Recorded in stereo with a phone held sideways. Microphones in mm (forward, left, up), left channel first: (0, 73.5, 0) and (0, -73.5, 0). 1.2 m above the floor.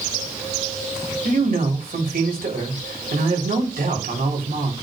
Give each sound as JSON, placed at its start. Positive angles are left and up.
{"t": 1.2, "sound": "a man speaking", "side_deg": -85, "distance_m": 4.0}